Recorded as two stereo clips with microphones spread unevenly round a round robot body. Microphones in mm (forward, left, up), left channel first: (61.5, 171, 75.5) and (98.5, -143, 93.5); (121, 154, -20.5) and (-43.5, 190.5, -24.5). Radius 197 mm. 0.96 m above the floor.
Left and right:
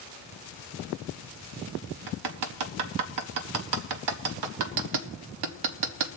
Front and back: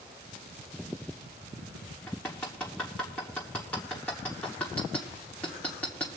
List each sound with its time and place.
2.1 s hammering: 95° right, 0.8 m